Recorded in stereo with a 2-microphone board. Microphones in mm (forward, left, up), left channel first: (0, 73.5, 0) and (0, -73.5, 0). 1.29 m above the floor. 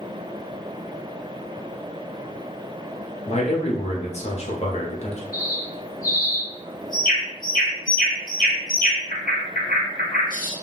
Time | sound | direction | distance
3.3 | a man speaking | 50° left (ahead or behind) | 0.9 m
5.3 | a bird | 70° left (ahead or behind) | 1.0 m